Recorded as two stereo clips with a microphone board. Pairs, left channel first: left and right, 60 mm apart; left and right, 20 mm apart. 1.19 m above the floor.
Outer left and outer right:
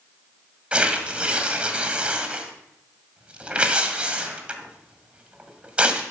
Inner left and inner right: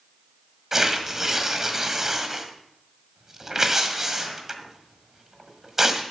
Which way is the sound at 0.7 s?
20° right (ahead or behind).